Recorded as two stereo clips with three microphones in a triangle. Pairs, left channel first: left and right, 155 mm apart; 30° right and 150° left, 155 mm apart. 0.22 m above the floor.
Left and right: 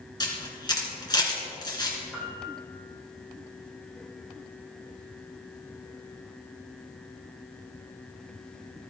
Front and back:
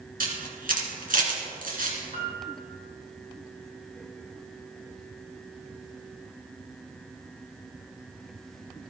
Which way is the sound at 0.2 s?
150° left.